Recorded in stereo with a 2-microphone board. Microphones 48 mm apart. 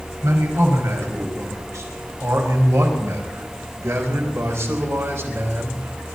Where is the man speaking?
85° right, 4.5 m; by 6.2 s 50° right (ahead or behind), 3 m.